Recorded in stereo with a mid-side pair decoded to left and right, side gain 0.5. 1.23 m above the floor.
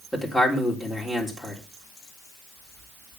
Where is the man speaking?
10° left, 3.5 m.